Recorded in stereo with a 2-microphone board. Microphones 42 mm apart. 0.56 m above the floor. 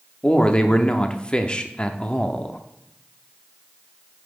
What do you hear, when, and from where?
0.2 s a man speaking: 25° left (ahead or behind), 0.7 m